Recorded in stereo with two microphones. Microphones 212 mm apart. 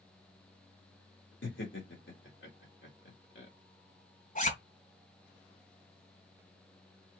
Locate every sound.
1.4 s laughter: 80° left, 2 m
4.3 s a zipper: 45° left (ahead or behind), 2 m